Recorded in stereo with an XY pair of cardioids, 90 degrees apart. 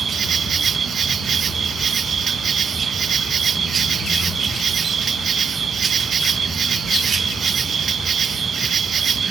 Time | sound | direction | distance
0.0 | an insect | 55° right | ?